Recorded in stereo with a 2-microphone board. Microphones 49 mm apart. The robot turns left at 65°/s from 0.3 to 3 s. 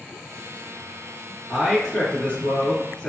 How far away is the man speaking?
About 1.5 m.